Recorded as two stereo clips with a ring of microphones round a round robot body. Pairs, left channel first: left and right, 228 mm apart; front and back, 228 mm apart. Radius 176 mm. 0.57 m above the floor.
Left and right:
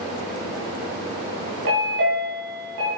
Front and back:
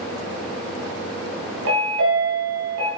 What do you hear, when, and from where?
1.6 s a chime: 135° right, 3 m